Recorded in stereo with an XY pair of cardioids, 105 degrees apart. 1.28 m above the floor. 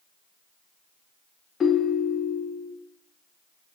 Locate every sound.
1.6 s a ringtone: 40° left, 0.7 m